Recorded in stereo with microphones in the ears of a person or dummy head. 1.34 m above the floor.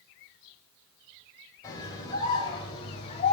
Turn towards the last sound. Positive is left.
turn(degrees=35)  # may be behind; listen again after turning